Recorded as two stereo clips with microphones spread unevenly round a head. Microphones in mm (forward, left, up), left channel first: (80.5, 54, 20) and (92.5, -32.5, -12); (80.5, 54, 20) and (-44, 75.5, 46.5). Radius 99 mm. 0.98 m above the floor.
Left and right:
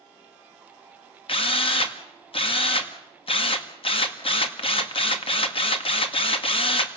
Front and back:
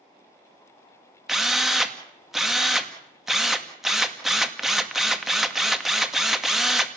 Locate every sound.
1.3 s a drill: 80° left, 2 m